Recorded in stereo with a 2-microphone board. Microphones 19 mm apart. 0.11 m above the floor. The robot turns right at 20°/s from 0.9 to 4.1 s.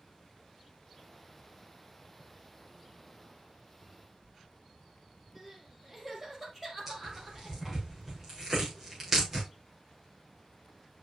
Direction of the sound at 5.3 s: 10° right (ahead or behind).